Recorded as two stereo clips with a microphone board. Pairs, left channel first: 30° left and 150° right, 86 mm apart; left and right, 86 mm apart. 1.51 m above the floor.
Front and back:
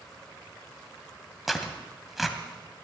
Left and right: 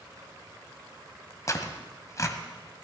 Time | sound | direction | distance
1.5 | tearing paper | 120° left | 1.8 m